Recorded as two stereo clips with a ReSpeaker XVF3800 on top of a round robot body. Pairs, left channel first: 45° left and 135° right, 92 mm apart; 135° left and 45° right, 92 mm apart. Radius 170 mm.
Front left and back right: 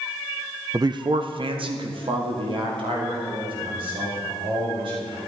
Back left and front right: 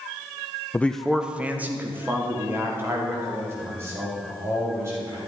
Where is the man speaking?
165° right, 0.6 m; by 5.2 s 105° right, 5.5 m.